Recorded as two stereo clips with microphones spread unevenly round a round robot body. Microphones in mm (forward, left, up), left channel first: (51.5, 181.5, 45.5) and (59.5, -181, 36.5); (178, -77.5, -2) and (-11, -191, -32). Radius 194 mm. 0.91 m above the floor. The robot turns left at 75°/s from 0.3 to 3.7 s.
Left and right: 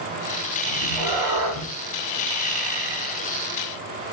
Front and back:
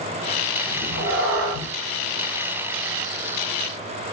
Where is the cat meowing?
75° right, 1.2 m; by 1.7 s 150° right, 1.2 m.